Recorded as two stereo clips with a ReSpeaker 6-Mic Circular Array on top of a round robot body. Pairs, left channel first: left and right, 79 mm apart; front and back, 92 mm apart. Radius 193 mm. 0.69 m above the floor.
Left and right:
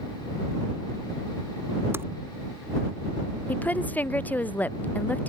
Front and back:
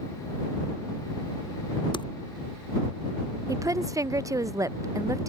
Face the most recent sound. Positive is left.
turn(degrees=150)